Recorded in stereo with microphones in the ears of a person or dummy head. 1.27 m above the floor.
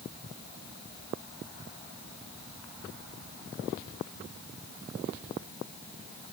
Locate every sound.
Only background noise.